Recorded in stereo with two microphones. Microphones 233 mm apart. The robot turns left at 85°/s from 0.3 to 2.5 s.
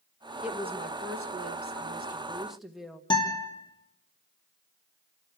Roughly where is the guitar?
Centre.